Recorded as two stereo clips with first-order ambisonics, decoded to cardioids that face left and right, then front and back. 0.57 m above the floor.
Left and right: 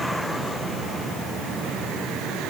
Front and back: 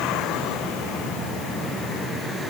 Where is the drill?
I don't hear a drill.